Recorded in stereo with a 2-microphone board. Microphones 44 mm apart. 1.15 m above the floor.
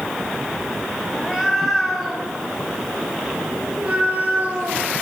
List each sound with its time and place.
1.1 s a cat meowing: 10° left (ahead or behind), 5 m; by 4.9 s 40° right (ahead or behind), 5.5 m